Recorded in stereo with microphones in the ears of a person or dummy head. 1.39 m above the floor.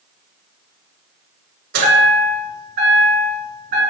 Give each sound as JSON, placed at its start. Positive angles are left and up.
{"t": 1.7, "sound": "a chime", "side_deg": -65, "distance_m": 1.4}